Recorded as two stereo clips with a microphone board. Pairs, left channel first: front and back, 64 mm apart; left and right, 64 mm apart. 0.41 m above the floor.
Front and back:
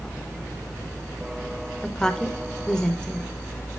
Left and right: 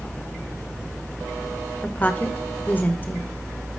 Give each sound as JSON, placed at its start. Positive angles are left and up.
{"t": 1.8, "sound": "a woman speaking", "azimuth_deg": 65, "distance_m": 1.0}